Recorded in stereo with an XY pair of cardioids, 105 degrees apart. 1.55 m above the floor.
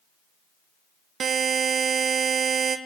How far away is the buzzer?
About 1.1 m.